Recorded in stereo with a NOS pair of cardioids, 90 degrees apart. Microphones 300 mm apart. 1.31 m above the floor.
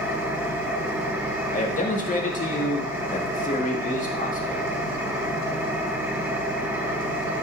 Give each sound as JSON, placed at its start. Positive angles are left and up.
{"t": 0.0, "sound": "an engine running", "azimuth_deg": -5, "distance_m": 1.5}
{"t": 1.5, "sound": "a man speaking", "azimuth_deg": 25, "distance_m": 2.0}